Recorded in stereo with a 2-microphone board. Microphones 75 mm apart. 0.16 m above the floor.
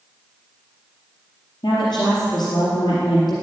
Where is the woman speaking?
70° left (ahead or behind), 4 m.